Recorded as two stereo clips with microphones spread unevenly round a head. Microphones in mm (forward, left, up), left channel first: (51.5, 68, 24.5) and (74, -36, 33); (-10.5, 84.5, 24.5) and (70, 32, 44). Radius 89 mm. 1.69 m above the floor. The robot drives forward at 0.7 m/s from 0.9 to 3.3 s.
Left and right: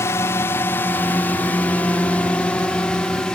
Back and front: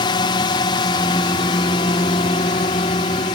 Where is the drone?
165° left; by 3.4 s 175° right.